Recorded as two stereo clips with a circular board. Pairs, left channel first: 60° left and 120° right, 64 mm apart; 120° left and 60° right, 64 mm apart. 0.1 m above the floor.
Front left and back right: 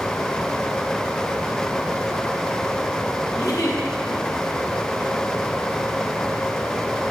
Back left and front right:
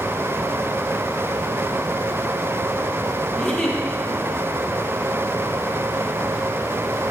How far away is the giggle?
About 3 m.